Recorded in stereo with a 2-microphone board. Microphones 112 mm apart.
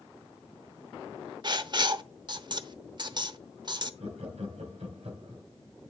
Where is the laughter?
75° right (ahead or behind), 3 m.